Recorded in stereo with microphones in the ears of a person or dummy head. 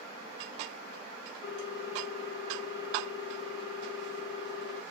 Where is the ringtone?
50° left (ahead or behind), 1.3 m.